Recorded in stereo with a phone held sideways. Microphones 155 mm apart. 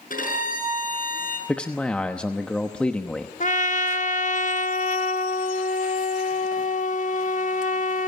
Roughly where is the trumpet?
Left.